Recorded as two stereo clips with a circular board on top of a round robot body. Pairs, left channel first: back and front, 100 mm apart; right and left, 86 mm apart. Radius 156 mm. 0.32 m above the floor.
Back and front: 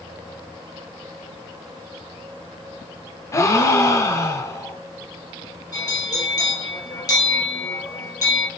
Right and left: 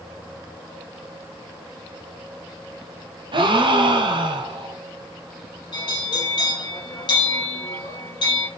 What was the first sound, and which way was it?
A gasp, 120° left.